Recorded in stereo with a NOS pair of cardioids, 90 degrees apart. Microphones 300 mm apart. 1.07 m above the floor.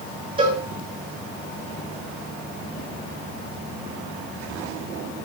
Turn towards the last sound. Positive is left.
turn(degrees=-20)